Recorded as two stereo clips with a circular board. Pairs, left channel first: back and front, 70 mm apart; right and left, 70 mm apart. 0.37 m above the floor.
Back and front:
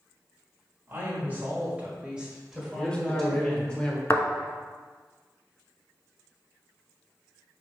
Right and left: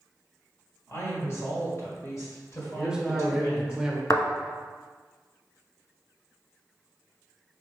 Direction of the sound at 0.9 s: 50° right.